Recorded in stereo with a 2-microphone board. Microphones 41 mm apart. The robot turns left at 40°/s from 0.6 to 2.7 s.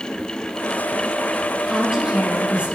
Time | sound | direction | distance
1.7 | a woman speaking | 5° right | 7 m